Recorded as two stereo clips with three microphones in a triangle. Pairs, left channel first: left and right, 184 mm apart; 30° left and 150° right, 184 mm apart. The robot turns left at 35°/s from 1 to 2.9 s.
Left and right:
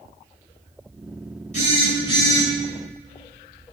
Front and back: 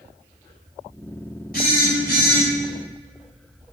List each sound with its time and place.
1.5 s a phone buzzing: 50° left, 1.6 m; by 2.5 s 15° left, 1.6 m